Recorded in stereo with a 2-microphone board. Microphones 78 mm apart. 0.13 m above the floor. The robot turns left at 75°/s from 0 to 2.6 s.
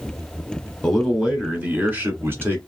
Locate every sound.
0.8 s a man speaking: 10° left (ahead or behind), 1.3 m; by 2.6 s 25° right (ahead or behind), 1.3 m